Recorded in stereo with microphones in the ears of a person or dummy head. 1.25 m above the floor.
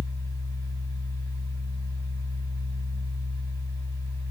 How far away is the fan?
About 1.5 m.